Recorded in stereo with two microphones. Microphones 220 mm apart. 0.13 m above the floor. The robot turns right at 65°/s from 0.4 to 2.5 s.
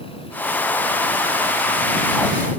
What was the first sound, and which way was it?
Only background noise.